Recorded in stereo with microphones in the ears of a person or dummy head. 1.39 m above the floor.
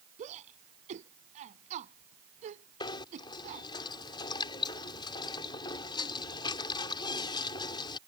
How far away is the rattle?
I don't hear a rattle.